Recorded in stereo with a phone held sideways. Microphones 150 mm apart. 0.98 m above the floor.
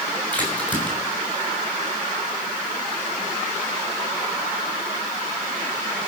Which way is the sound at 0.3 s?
10° left (ahead or behind).